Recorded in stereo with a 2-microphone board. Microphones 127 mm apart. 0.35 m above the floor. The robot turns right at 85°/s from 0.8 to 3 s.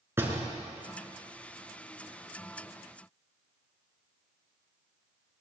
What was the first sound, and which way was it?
A door slam, 20° right (ahead or behind).